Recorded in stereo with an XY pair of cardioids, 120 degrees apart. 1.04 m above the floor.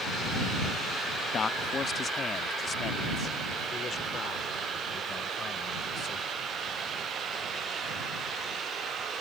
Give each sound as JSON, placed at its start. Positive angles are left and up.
{"t": 1.3, "sound": "a man speaking", "azimuth_deg": 35}